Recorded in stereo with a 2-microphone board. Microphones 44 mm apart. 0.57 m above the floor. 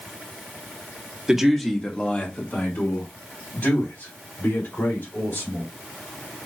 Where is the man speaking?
15° right (ahead or behind), 1.1 m; by 5.7 s 75° left (ahead or behind), 5 m.